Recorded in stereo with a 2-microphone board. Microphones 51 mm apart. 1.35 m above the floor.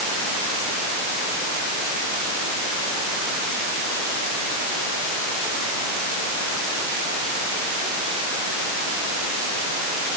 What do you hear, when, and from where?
Only background noise.